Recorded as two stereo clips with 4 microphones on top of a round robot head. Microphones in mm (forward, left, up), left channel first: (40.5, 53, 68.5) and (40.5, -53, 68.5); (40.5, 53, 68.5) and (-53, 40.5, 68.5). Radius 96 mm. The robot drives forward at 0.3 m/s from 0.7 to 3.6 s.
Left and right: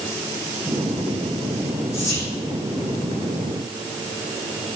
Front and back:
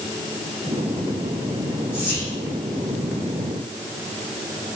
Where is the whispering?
60° left, 1.2 m; by 2.3 s 70° left, 1.2 m.